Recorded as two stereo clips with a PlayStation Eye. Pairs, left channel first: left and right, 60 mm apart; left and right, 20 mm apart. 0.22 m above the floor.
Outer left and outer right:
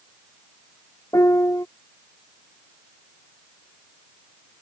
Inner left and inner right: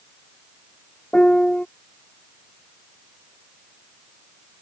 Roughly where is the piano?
Left.